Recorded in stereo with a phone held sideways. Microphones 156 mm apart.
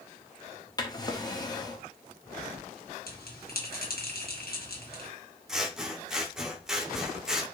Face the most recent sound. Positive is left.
turn(degrees=-5)  # may be behind; listen again after turning